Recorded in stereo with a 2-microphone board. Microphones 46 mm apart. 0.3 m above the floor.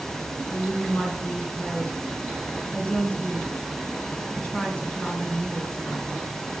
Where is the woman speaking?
35° left (ahead or behind), 3 m.